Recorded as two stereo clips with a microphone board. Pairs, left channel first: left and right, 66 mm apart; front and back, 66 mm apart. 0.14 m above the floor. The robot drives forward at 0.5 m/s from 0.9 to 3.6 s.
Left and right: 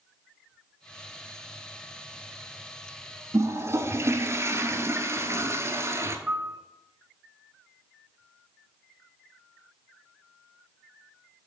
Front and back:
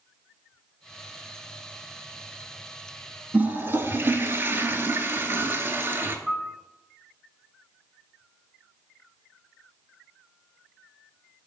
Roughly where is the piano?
Behind right.